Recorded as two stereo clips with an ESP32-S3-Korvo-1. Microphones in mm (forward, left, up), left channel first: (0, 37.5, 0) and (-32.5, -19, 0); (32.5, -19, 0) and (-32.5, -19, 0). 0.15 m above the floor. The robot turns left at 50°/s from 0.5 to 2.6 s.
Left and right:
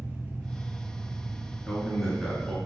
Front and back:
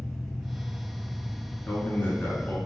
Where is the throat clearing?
No throat clearing in this recording.